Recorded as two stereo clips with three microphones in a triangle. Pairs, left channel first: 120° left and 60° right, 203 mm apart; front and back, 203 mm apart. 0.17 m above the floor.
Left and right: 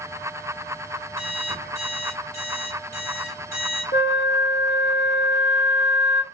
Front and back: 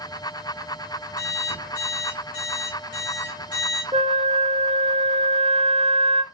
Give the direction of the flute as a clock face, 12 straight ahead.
8 o'clock.